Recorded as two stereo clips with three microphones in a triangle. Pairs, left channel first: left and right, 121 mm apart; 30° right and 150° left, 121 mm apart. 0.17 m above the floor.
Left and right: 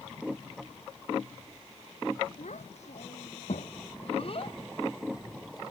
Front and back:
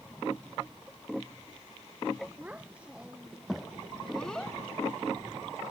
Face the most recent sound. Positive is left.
turn(degrees=30)